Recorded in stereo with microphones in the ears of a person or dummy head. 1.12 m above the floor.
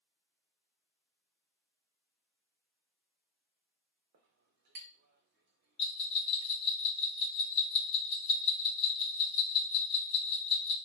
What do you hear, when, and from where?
4.1 s a clink: 45° right (ahead or behind), 0.6 m
5.8 s a bell: 25° left (ahead or behind), 0.9 m